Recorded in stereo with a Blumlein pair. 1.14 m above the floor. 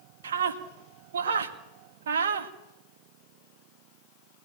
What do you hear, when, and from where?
0.2 s a scream: 60° right, 2 m